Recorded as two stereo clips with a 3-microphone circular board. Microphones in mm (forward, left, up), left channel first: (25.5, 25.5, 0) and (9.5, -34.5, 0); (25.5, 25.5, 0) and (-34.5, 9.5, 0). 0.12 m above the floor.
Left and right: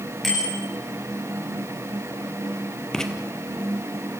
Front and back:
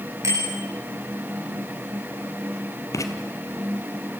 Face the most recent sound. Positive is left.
turn(degrees=-5)